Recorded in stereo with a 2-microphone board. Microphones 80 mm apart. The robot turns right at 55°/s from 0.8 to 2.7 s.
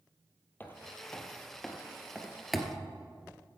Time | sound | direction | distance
0.6 | footsteps | 25° left (ahead or behind) | 1.8 m